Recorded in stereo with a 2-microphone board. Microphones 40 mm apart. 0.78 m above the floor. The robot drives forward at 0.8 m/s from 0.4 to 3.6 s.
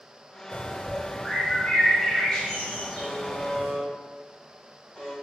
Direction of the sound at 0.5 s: 45° left (ahead or behind).